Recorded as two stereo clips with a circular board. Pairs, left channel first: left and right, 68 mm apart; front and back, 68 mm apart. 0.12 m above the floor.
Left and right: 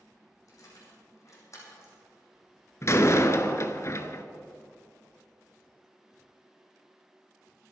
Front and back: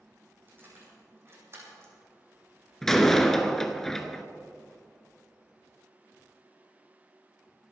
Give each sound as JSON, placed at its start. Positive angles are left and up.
{"t": 0.5, "sound": "keys jangling", "azimuth_deg": 125, "distance_m": 5.0}
{"t": 2.8, "sound": "a door slam", "azimuth_deg": 85, "distance_m": 1.1}